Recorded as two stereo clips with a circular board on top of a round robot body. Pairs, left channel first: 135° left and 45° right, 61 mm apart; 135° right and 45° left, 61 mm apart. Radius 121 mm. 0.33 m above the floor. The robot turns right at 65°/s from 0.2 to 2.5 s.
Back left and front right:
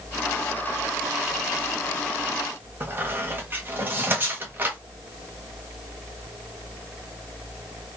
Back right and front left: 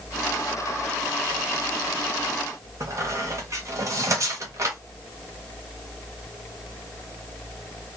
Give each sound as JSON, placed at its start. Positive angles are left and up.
{"t": 2.8, "sound": "a squeak", "azimuth_deg": 10, "distance_m": 1.4}